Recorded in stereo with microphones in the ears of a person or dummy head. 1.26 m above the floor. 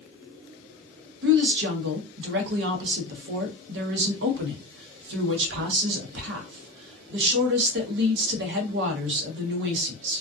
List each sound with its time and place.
1.2 s a woman speaking: 65° right (ahead or behind), 0.8 m